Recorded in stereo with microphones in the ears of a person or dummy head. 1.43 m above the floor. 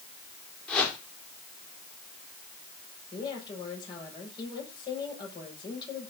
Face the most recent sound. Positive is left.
turn(degrees=25)  # may be behind; listen again after turning